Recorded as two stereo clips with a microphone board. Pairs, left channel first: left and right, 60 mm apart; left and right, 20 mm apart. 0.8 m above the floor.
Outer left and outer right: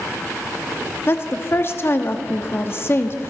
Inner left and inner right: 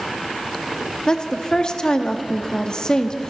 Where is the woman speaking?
40° left (ahead or behind), 1.0 m.